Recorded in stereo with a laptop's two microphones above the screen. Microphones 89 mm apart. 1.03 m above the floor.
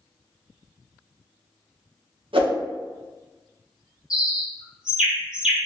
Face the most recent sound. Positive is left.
turn(degrees=-10)  # may be behind; listen again after turning